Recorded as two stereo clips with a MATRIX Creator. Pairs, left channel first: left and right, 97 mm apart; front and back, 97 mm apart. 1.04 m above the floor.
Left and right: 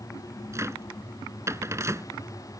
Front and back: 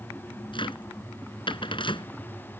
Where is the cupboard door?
30° right.